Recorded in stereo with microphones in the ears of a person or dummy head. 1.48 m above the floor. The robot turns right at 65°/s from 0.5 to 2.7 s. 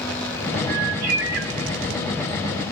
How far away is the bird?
About 1.0 m.